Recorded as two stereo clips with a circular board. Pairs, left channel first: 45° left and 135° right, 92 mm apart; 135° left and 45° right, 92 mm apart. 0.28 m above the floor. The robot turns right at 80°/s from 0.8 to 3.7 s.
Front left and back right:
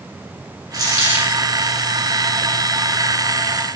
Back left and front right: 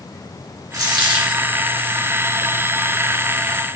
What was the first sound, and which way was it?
A dropped coin, 90° right.